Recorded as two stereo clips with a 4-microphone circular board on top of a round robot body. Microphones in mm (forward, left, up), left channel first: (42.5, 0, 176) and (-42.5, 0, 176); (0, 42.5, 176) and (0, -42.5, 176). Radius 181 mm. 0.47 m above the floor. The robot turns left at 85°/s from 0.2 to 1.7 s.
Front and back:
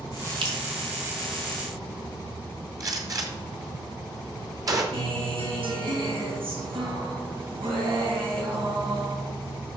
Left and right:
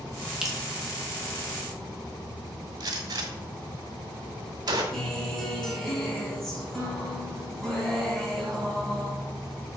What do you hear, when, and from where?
0.4 s dripping: 170° right, 2.5 m; by 0.6 s 175° left, 2.5 m
2.8 s a gunshot: 130° right, 1.8 m
4.9 s a guitar: 175° left, 3.5 m